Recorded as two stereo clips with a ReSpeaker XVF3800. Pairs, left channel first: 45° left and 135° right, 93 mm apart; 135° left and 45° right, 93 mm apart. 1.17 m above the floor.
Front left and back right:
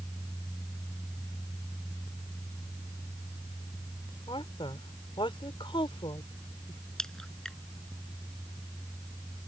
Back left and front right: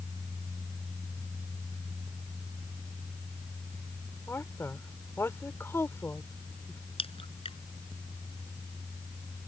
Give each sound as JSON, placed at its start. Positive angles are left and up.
{"t": 4.3, "sound": "a woman speaking", "azimuth_deg": 70}
{"t": 7.0, "sound": "a crack", "azimuth_deg": 130}